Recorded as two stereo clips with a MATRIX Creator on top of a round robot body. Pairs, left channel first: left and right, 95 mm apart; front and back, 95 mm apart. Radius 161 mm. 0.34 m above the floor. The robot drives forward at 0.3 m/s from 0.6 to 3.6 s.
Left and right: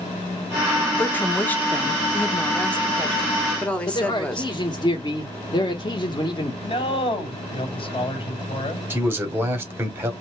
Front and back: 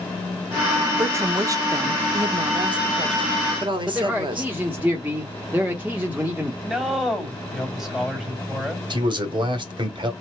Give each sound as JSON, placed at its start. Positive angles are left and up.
{"t": 1.0, "sound": "a woman speaking", "azimuth_deg": 145, "distance_m": 1.0}
{"t": 3.9, "sound": "a man speaking", "azimuth_deg": 110, "distance_m": 1.3}
{"t": 6.6, "sound": "a man speaking", "azimuth_deg": 95, "distance_m": 2.0}
{"t": 8.9, "sound": "a man speaking", "azimuth_deg": -155, "distance_m": 2.0}